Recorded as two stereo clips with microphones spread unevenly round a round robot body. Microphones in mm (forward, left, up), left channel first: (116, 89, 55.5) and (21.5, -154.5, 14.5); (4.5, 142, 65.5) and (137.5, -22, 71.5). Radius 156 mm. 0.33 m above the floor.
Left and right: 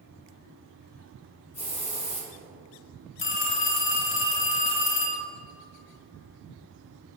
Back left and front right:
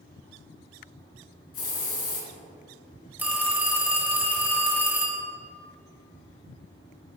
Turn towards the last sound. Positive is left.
turn(degrees=30)